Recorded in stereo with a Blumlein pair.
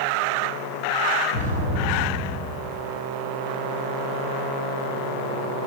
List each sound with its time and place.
1.3 s an explosion: 65° left, 0.9 m